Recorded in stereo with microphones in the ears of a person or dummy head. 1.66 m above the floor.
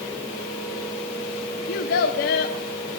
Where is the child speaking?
50° left (ahead or behind), 0.7 m.